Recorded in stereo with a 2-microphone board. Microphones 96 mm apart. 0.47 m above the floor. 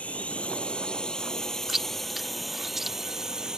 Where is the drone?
15° left (ahead or behind); by 3.6 s 5° right (ahead or behind).